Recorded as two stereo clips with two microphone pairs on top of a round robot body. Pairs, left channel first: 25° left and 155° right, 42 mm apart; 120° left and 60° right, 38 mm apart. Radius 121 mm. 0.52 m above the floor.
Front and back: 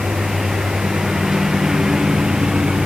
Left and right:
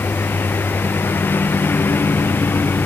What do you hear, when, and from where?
0.0 s a lawn mower: 120° left; by 2.9 s 130° left